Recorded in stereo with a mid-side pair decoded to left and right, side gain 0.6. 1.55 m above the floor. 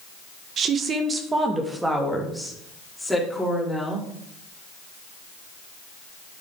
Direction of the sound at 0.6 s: 50° right.